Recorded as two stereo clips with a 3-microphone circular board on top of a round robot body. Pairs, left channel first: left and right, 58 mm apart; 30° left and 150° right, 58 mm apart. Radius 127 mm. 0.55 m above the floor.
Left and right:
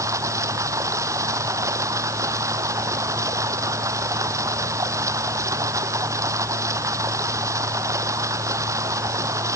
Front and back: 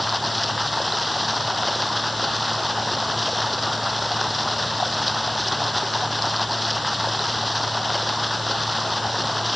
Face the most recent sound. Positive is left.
turn(degrees=-60)